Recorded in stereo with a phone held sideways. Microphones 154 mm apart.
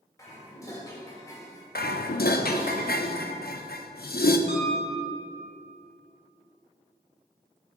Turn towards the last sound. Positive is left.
turn(degrees=-50)  # may be behind; listen again after turning